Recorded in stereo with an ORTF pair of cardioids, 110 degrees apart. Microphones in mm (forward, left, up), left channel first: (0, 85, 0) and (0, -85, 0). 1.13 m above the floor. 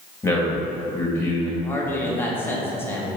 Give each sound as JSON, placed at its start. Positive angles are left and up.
{"t": 0.2, "sound": "a man speaking", "azimuth_deg": 15, "distance_m": 2.0}
{"t": 1.6, "sound": "a man speaking", "azimuth_deg": 10, "distance_m": 1.4}